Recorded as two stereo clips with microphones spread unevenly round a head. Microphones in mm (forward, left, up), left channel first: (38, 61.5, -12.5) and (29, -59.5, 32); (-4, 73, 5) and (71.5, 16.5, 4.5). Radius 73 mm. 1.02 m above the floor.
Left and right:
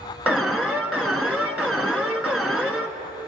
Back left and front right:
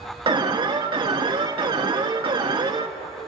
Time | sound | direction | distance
0.3 | an alarm | 5° right | 1.4 m